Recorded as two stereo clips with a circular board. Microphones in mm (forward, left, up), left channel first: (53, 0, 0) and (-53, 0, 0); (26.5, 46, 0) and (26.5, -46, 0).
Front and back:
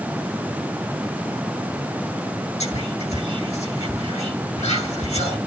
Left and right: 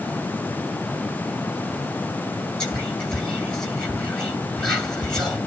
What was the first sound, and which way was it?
Whispering, 10° left.